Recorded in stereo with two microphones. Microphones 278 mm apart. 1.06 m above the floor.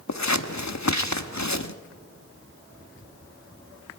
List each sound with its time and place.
0.1 s scissors: 75° left (ahead or behind), 1.1 m